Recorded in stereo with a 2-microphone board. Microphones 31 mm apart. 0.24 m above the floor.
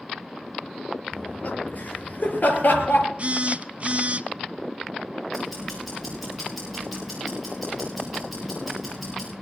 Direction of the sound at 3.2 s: 40° right (ahead or behind).